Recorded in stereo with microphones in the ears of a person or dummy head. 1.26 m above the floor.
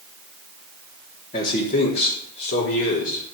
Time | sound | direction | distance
1.3 | a man speaking | 40° left (ahead or behind) | 3 m